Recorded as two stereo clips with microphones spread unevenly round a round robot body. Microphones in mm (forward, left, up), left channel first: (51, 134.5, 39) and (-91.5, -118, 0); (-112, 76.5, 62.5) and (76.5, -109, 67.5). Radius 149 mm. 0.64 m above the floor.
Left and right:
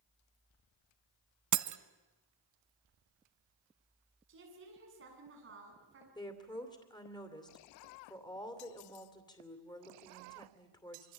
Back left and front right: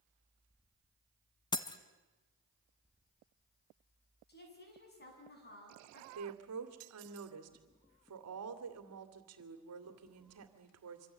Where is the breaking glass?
150° right, 1.0 m.